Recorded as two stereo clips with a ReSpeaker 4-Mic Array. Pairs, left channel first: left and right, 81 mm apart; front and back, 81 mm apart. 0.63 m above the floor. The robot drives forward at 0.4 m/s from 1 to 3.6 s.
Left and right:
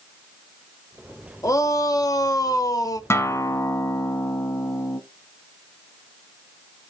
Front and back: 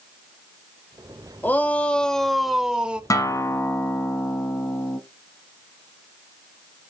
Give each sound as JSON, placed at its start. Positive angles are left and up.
{"t": 1.4, "sound": "a shout", "azimuth_deg": 60, "distance_m": 1.0}
{"t": 3.1, "sound": "a guitar", "azimuth_deg": 40, "distance_m": 0.9}